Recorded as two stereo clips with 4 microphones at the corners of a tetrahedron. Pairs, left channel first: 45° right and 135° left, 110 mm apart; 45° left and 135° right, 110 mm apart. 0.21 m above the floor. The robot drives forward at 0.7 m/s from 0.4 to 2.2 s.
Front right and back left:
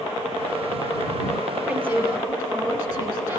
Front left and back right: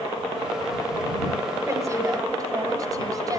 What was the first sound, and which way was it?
A woman speaking, 165° right.